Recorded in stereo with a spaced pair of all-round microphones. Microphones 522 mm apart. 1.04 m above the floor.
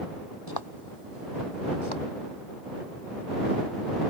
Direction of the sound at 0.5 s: 40° left (ahead or behind).